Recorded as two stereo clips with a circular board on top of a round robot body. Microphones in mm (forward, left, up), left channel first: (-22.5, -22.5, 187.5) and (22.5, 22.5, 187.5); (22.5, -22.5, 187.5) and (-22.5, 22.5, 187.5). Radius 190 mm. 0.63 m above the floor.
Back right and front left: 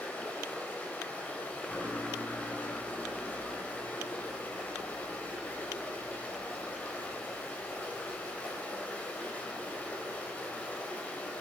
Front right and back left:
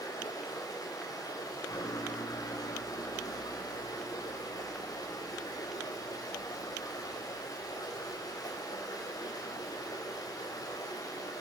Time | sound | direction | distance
0.0 | running water | 65° right | 4.5 m